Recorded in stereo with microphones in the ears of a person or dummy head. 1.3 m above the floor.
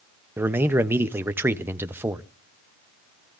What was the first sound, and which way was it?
A man speaking, 10° right (ahead or behind).